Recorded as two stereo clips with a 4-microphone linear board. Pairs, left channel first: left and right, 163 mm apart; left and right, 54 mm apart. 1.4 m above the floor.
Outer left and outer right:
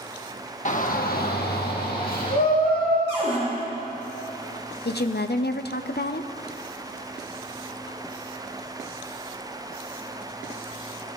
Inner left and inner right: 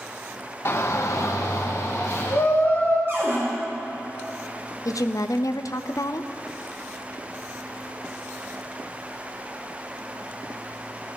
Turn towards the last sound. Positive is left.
turn(degrees=85)